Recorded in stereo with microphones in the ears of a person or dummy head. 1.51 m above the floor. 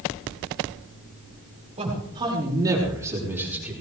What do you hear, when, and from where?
1.8 s a man speaking: 25° right (ahead or behind), 5.5 m; by 3.7 s 5° right (ahead or behind), 5 m